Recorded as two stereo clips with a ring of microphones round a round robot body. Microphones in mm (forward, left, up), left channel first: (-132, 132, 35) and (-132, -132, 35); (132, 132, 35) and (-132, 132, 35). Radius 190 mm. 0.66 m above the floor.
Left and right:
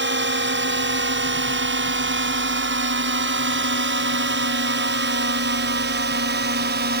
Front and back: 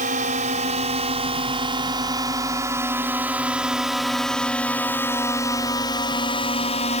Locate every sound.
0.0 s a drone: 120° right; by 7.0 s 55° right